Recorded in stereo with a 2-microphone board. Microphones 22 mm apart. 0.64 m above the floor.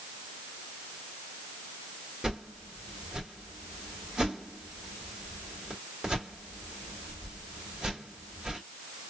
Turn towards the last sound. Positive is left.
turn(degrees=-40)  # may be behind; listen again after turning